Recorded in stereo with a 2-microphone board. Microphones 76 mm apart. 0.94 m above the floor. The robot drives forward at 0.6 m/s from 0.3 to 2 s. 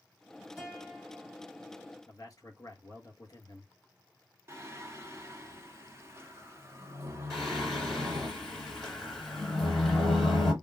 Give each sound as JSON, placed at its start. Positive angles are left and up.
{"t": 0.6, "sound": "a guitar", "side_deg": -5, "distance_m": 1.4}
{"t": 2.1, "sound": "a man speaking", "side_deg": 45, "distance_m": 1.3}
{"t": 4.5, "sound": "singing", "side_deg": -30, "distance_m": 0.8}
{"t": 7.3, "sound": "singing", "side_deg": 5, "distance_m": 1.7}